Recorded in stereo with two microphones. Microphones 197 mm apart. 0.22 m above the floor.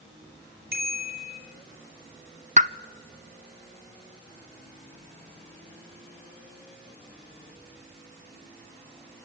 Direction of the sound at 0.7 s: 50° right (ahead or behind).